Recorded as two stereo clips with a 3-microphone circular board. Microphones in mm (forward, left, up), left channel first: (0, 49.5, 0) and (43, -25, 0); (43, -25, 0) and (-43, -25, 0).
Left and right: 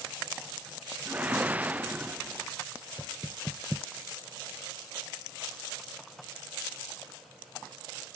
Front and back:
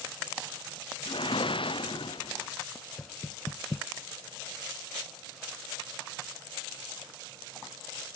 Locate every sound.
1.1 s a whoosh: 10° left
3.0 s knocking: 25° left